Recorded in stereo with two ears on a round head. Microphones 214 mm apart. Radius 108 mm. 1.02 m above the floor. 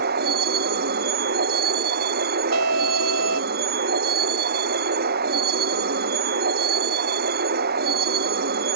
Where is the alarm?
70° right (ahead or behind).